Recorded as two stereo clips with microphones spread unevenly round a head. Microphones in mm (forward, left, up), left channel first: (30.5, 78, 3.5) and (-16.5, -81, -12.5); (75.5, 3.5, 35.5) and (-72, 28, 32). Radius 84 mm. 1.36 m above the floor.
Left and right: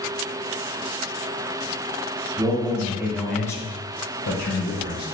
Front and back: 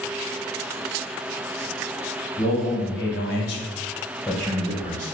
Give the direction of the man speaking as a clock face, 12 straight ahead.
1 o'clock.